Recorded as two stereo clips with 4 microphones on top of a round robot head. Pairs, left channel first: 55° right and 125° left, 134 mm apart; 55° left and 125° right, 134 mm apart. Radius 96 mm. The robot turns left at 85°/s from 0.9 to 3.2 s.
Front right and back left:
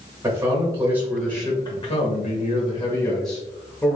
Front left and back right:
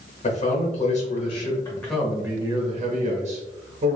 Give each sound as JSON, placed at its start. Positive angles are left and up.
{"t": 0.2, "sound": "a man speaking", "azimuth_deg": 55, "distance_m": 1.3}